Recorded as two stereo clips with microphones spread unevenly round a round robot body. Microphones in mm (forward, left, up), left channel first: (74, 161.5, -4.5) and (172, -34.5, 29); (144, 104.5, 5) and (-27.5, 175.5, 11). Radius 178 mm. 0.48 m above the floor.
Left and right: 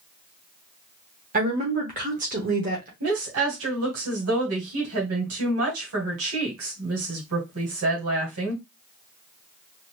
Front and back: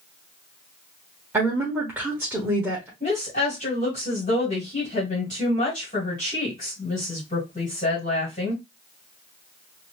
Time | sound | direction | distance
1.3 | a woman speaking | 120° right | 1.0 m
3.0 | a woman speaking | 85° right | 1.8 m